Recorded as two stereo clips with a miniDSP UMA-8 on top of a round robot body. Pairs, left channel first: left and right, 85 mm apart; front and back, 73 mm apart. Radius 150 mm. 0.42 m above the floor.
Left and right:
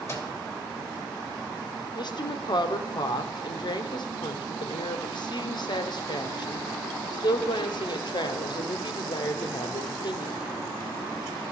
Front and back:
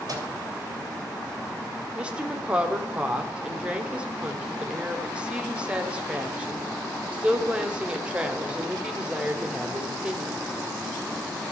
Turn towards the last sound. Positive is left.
turn(degrees=105)